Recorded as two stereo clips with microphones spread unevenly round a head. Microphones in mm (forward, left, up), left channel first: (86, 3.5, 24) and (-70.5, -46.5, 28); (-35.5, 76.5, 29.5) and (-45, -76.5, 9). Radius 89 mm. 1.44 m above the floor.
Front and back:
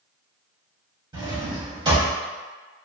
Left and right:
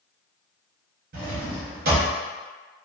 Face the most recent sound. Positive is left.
turn(degrees=-105)